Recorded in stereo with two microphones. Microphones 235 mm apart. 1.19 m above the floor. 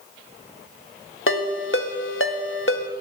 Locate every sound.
1.3 s a ringtone: 60° left (ahead or behind), 1.0 m